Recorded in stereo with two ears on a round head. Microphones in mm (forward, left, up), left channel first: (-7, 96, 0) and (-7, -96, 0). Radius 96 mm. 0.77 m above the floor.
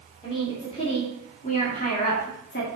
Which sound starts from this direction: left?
A woman speaking, at 0.2 s.